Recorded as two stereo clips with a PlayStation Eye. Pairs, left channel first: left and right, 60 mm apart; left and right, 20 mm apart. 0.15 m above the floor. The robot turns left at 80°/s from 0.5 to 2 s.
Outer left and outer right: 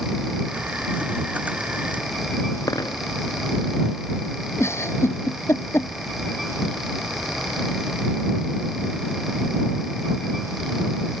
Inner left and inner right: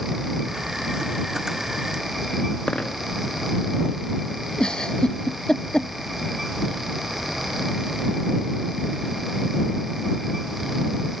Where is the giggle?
45° left (ahead or behind).